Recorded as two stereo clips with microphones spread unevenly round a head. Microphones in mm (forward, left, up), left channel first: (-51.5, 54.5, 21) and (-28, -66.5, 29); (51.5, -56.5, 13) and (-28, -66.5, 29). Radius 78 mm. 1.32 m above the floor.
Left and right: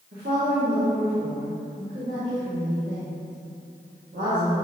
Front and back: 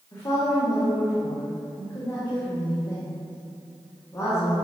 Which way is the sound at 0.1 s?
50° right.